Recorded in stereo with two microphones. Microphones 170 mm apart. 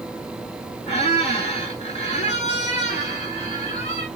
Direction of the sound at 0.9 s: 40° left (ahead or behind).